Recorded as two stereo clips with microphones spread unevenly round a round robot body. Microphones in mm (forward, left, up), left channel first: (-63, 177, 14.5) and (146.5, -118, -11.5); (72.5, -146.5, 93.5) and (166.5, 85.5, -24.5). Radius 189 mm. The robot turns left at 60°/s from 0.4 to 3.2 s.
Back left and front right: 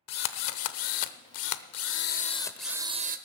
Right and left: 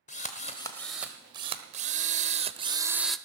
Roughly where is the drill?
Behind.